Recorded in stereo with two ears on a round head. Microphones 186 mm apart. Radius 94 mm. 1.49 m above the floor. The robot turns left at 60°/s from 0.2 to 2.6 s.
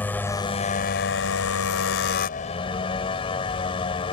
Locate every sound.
0.0 s a motorcycle: 170° left; by 4.1 s 25° left